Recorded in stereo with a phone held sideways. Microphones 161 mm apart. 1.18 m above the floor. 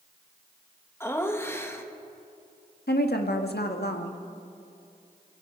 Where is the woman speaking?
85° left, 1.7 m.